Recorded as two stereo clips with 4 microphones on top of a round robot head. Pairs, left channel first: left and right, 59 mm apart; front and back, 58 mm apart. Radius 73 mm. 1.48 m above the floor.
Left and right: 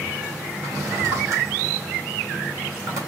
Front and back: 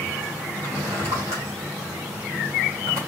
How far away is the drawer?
About 2.0 m.